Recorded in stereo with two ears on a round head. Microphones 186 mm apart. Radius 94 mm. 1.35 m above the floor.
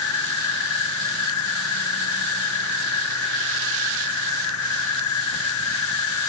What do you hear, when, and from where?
0.0 s an insect: 80° left